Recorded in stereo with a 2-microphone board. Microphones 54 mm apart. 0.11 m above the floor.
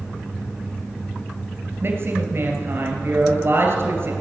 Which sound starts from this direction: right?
A woman speaking, at 1.8 s.